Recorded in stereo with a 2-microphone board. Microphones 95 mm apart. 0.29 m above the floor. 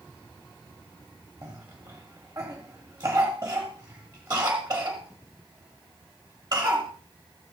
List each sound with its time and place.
1.4 s a cough: 45° right (ahead or behind), 1.2 m